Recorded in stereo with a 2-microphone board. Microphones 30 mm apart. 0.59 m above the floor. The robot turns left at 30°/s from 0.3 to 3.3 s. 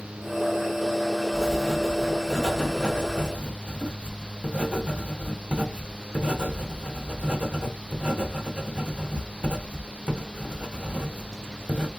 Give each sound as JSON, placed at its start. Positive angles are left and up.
{"t": 1.3, "sound": "writing", "side_deg": 15, "distance_m": 1.0}